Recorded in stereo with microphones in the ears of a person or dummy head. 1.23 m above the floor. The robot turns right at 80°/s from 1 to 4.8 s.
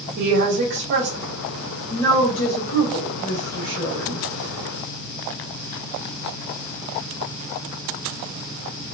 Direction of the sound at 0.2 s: 65° right.